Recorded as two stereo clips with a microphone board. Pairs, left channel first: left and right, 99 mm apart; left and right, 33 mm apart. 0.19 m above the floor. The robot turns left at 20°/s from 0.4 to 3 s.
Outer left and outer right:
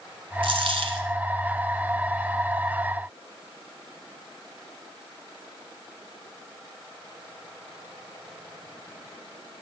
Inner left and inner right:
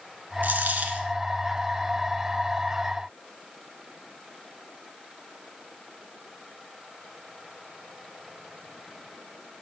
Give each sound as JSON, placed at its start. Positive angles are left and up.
{"t": 0.4, "sound": "a dropped coin", "side_deg": -65, "distance_m": 1.0}